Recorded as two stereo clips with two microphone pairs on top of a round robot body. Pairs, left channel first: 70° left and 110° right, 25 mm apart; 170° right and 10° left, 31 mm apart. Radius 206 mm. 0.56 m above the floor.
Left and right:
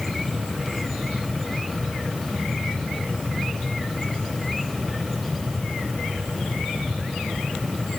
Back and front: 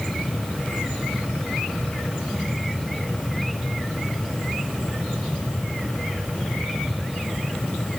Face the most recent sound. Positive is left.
No sound to turn to.